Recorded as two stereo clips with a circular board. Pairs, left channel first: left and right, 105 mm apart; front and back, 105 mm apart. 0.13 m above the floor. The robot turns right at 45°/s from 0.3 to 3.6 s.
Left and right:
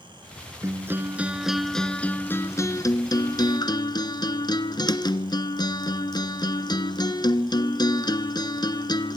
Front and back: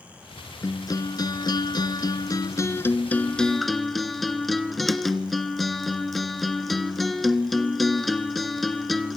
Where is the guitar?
45° right, 1.6 m; by 9.2 s 90° left, 1.6 m.